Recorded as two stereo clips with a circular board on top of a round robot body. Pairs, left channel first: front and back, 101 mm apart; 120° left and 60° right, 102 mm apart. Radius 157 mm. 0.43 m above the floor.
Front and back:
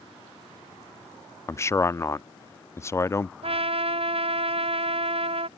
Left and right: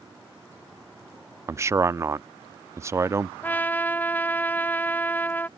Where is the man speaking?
30° right.